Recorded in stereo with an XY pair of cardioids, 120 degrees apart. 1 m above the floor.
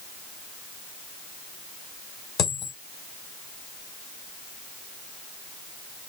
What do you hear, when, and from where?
2.4 s a dropped coin: 70° left, 1.8 m